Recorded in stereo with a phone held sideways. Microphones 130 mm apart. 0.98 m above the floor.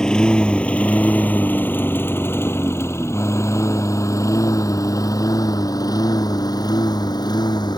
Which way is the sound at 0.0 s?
5° left (ahead or behind).